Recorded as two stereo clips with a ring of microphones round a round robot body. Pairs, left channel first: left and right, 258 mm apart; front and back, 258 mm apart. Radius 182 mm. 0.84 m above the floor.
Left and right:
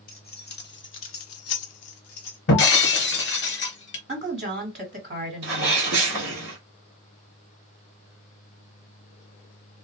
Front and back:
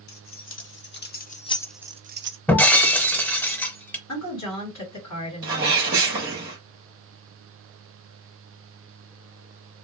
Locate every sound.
0.1 s keys jangling: 35° left, 1.4 m; by 2.4 s 145° left, 0.6 m
2.5 s breaking glass: 80° left, 0.8 m
4.1 s a woman speaking: 35° right, 1.5 m
5.4 s a sneeze: 135° right, 1.0 m